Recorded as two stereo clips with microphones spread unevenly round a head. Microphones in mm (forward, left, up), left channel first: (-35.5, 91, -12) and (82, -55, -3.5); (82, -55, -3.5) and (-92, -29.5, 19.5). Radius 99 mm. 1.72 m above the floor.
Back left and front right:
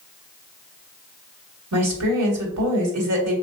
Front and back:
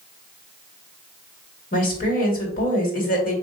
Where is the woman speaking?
55° right, 2 m.